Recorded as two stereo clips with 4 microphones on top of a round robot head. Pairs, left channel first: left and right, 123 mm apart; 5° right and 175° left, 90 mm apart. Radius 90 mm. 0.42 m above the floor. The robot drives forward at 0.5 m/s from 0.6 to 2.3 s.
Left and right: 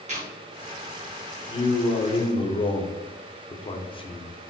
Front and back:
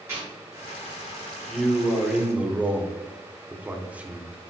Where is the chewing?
115° right, 3 m.